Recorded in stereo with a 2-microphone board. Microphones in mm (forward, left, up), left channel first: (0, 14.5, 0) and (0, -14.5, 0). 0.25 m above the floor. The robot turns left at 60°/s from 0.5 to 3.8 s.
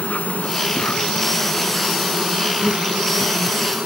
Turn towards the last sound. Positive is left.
turn(degrees=-120)